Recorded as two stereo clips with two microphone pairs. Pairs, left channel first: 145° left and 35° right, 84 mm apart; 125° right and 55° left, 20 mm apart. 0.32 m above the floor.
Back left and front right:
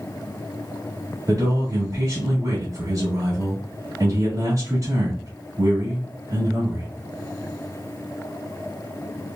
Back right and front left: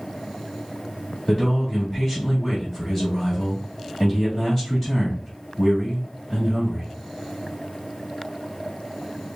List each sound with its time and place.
1.3 s a man speaking: 65° right, 2.0 m